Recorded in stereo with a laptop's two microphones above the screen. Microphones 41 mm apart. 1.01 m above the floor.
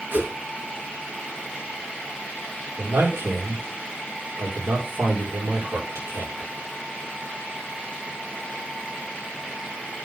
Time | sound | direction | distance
0.1 | a whoosh | 55° right (ahead or behind) | 3.5 m
2.8 | a man speaking | 80° right | 3.5 m